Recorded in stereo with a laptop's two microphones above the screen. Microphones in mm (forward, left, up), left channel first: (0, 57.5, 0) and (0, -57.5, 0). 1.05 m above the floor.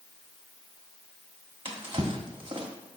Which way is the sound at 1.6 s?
45° right (ahead or behind).